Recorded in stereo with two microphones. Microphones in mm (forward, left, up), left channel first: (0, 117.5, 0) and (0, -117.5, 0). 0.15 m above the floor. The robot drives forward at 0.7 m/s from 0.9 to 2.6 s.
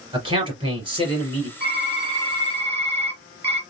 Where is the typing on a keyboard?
25° right (ahead or behind), 1.8 m; by 3.6 s 20° right (ahead or behind), 2 m.